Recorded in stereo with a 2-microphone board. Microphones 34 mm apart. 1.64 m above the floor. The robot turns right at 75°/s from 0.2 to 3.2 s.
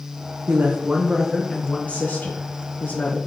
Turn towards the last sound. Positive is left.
turn(degrees=140)